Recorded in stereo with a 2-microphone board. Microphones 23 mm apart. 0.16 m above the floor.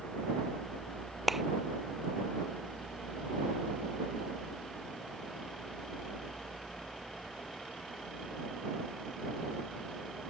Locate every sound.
1.3 s a clap: 15° right (ahead or behind)